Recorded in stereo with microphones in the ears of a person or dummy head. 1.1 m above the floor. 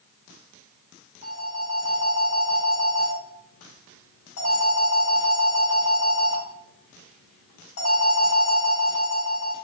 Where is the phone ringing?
80° left, 1.9 m.